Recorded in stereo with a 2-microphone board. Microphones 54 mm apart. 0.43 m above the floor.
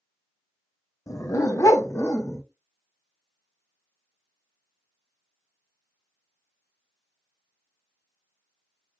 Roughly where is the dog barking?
Left.